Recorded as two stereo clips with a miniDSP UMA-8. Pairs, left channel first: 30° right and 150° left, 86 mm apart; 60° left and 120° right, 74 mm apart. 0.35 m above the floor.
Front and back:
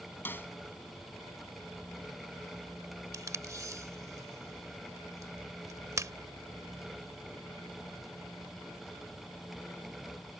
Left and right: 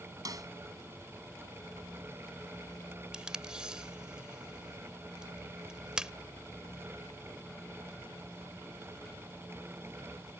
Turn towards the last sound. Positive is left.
turn(degrees=165)